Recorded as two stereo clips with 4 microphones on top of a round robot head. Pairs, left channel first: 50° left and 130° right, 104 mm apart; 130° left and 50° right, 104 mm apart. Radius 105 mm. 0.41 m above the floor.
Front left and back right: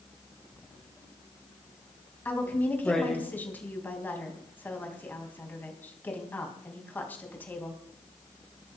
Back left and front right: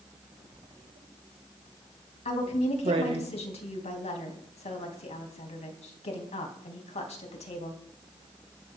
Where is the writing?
35° right, 2.5 m.